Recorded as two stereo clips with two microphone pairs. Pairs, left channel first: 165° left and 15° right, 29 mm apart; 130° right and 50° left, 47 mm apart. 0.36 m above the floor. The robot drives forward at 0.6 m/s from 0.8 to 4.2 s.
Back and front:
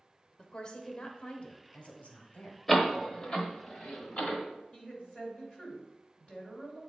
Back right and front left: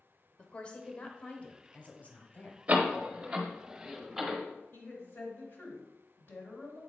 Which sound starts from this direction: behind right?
A woman speaking, at 4.7 s.